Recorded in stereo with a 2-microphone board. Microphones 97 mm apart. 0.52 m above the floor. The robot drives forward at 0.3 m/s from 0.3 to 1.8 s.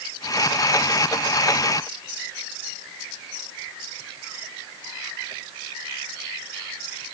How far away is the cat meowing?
No cat meowing in this recording.